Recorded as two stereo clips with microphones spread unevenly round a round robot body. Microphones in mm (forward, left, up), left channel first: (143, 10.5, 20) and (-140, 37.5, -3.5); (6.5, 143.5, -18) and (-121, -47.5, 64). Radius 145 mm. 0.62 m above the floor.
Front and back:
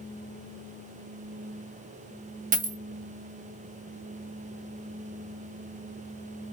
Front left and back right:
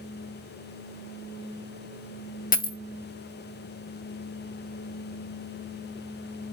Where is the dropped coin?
110° left, 0.5 m.